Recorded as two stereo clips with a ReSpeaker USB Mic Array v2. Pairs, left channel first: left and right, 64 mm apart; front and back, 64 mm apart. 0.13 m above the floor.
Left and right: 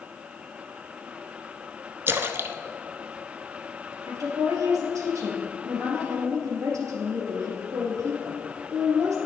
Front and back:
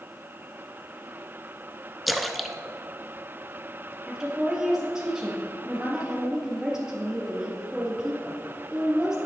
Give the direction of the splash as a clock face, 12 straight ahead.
3 o'clock.